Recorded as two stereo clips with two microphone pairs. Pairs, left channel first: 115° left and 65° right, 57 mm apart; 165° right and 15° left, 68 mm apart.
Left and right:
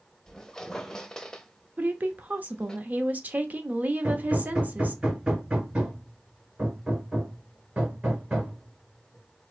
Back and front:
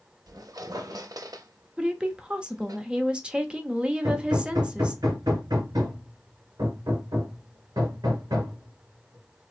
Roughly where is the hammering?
Ahead.